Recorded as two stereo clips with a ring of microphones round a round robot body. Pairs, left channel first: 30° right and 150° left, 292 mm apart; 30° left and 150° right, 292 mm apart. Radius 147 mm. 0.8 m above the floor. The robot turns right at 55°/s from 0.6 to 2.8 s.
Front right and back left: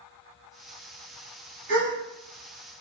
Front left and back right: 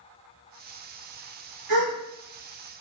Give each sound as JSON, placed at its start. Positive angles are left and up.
{"t": 1.7, "sound": "a gasp", "azimuth_deg": -160, "distance_m": 1.4}